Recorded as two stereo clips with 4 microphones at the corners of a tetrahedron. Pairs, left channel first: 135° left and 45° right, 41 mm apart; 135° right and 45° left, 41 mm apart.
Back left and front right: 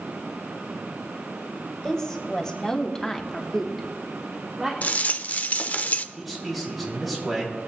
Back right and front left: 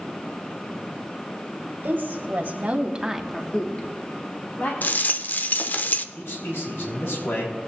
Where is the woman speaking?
60° left, 2.5 m; by 4.7 s 130° right, 2 m.